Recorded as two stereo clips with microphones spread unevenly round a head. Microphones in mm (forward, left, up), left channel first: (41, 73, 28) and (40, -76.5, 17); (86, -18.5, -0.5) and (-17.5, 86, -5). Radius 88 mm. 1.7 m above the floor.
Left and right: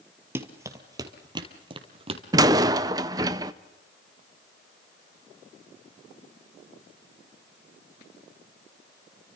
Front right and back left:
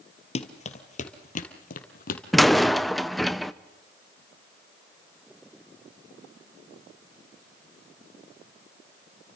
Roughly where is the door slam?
Behind right.